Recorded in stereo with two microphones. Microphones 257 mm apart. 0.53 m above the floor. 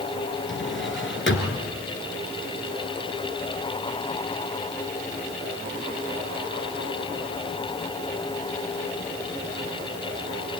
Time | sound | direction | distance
0.5 | a drawer | 50° left (ahead or behind) | 2.5 m